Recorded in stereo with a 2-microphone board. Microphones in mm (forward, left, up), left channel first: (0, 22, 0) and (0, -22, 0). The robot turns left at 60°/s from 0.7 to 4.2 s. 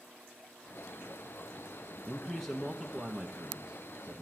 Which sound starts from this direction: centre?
A man speaking, at 2.1 s.